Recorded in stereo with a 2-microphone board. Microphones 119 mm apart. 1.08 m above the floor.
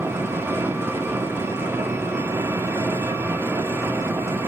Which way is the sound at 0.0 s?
20° right (ahead or behind).